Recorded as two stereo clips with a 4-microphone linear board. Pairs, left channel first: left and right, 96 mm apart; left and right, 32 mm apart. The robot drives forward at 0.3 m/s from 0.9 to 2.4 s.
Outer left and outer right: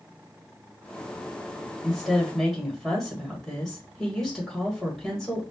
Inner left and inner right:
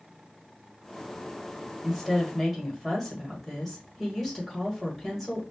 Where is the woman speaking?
Centre (ahead or behind), 1.7 m.